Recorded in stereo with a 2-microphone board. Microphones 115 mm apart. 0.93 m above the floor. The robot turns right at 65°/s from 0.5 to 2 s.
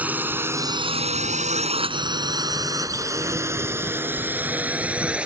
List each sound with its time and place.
0.0 s a drone: 15° right (ahead or behind); by 5.3 s 10° right (ahead or behind)